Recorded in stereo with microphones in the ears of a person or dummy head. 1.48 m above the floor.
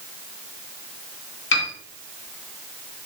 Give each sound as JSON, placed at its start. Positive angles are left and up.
{"t": 1.5, "sound": "a piano", "side_deg": 70, "distance_m": 1.6}